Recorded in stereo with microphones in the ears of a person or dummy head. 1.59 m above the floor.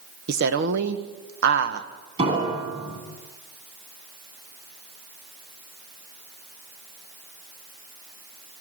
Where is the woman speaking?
60° right (ahead or behind), 1.6 m.